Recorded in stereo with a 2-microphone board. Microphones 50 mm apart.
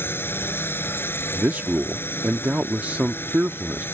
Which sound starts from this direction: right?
A man speaking, at 1.3 s.